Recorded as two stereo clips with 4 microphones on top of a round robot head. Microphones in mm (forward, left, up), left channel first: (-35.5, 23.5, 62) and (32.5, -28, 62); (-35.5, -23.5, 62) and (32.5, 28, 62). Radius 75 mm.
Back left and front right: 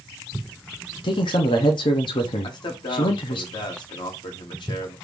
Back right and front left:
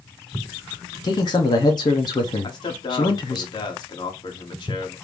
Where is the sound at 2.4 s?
175° left, 1.1 m.